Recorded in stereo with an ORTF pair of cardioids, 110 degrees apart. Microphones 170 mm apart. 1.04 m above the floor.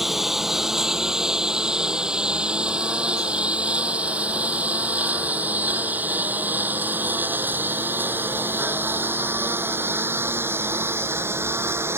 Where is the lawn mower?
Straight ahead; by 12.0 s 15° right.